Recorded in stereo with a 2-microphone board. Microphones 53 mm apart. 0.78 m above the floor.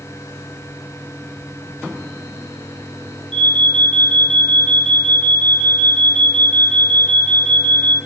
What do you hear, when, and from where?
3.3 s an alarm: 20° left (ahead or behind), 7.5 m